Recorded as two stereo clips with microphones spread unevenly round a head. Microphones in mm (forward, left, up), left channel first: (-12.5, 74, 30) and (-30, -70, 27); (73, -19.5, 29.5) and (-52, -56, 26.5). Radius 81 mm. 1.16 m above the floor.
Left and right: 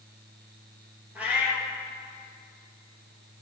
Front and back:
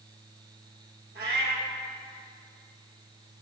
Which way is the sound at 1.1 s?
175° right.